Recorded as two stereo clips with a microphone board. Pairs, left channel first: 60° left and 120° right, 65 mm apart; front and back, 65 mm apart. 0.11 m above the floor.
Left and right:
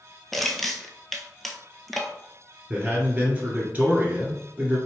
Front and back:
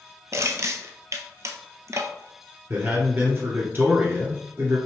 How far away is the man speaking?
About 1.9 m.